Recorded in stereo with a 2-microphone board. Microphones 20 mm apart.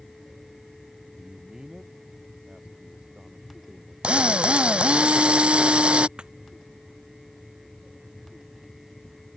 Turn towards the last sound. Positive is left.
turn(degrees=-60)  # may be behind; listen again after turning